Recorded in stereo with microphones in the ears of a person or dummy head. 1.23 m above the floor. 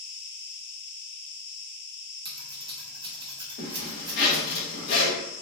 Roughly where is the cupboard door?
I don't hear a cupboard door.